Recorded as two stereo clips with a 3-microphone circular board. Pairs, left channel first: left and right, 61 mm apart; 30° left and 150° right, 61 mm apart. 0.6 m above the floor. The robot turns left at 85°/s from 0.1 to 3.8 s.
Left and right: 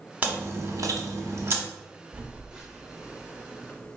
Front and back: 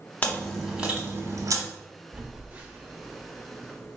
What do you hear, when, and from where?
0.2 s chewing: 30° right, 1.0 m; by 1.6 s 150° right, 1.0 m
2.1 s a phone buzzing: 115° right, 0.7 m; by 4.0 s 105° left, 0.7 m